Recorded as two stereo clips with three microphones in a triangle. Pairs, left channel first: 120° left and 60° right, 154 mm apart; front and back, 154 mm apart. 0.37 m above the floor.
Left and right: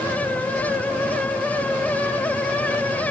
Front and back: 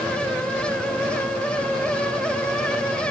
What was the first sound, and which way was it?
Only background noise.